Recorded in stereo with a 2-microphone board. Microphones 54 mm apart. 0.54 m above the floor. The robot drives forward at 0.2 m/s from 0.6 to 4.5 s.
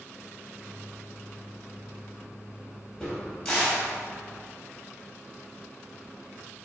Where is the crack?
15° left (ahead or behind), 2.5 m.